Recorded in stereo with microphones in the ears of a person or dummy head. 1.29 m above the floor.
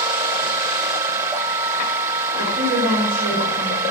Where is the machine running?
10° right (ahead or behind), 1.1 m.